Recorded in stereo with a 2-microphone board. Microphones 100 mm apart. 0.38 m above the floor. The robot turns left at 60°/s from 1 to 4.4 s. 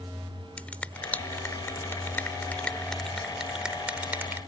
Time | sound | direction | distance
0.6 | a finger snap | 15° left (ahead or behind) | ?